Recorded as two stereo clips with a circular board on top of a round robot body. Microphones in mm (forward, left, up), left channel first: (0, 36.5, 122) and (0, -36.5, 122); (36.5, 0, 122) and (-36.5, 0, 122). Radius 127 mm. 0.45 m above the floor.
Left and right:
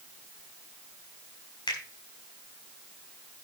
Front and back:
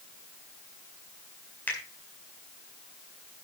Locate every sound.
1.7 s a finger snap: 70° left, 4.5 m